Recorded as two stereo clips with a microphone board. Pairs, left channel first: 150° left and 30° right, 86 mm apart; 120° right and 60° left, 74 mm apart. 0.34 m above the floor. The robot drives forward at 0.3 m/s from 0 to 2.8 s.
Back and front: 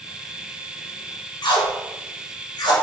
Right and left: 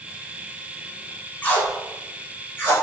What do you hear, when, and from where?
1.4 s tape being pulled: 175° left, 0.5 m